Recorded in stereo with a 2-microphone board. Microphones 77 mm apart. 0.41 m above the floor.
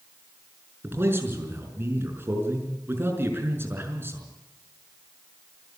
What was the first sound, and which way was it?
A man speaking, 30° right (ahead or behind).